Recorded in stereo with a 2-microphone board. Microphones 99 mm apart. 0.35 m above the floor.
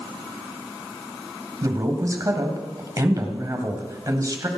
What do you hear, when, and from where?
1.6 s a man speaking: 35° right (ahead or behind), 2 m